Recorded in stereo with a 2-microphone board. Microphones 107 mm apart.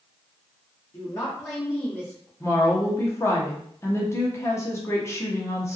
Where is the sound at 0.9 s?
25° left (ahead or behind), 1.1 m; by 2.3 s 10° left (ahead or behind), 1.6 m.